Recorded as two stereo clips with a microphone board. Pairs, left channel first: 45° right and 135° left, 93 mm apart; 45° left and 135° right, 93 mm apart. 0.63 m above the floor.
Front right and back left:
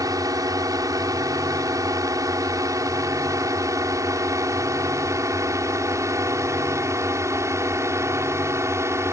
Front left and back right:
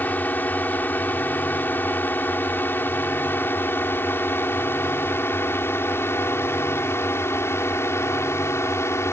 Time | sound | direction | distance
0.0 | a drone | 110° left | ?